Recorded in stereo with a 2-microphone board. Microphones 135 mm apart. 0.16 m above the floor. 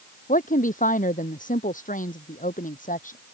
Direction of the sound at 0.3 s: 80° left.